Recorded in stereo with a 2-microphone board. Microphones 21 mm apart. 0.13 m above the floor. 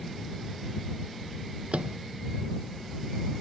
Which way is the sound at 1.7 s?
75° right (ahead or behind).